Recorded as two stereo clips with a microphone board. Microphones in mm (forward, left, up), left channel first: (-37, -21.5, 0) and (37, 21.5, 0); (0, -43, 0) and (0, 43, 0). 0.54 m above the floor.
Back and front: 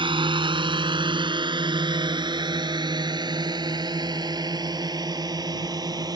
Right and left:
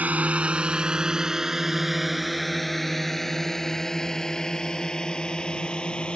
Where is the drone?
20° left; by 6.2 s 10° right.